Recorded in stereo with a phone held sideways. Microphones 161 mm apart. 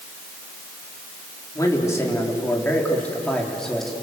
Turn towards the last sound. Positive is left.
turn(degrees=0)  # may be behind; listen again after turning